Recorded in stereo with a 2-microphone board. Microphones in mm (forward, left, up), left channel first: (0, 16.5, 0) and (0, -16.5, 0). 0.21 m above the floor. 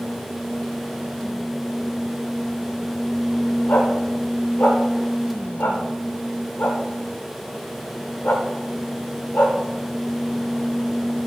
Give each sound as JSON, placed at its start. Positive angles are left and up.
{"t": 3.7, "sound": "a dog barking", "side_deg": 65, "distance_m": 7.0}